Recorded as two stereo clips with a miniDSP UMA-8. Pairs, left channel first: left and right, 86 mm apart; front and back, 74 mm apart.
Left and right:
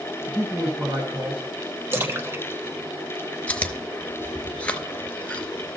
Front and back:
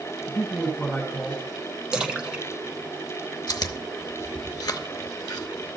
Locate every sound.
0.3 s a man speaking: 55° right, 1.8 m; by 1.4 s 105° right, 2 m
1.9 s a splash: 115° right, 1.1 m
3.5 s chewing: 20° left, 0.8 m